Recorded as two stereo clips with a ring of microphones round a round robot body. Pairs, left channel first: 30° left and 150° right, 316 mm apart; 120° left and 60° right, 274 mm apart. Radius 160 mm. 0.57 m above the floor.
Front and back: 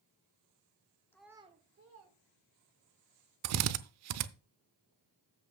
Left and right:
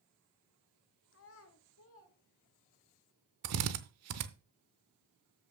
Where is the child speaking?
110° left, 1.0 m; by 2.9 s 175° left, 2.5 m.